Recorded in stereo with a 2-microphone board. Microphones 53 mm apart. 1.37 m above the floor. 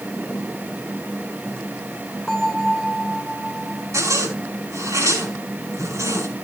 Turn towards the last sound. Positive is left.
turn(degrees=-80)